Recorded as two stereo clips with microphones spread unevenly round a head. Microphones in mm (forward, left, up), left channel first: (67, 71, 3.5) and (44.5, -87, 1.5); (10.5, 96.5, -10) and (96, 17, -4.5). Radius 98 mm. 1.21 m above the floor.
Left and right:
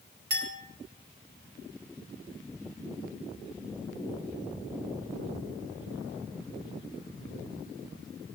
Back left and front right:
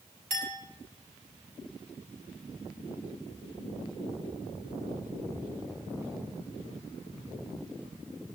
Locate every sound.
0.3 s a clink: 85° right, 5 m